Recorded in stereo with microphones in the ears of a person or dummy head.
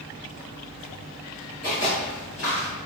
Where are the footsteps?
40° left (ahead or behind), 1.5 m; by 2.7 s 20° left (ahead or behind), 1.4 m.